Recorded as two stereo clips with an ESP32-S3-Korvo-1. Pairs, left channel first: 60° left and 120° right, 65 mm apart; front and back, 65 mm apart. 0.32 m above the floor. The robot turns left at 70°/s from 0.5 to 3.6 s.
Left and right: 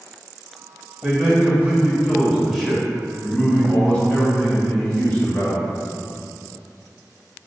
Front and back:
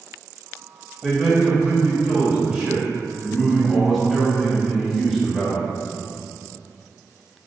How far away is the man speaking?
About 0.8 m.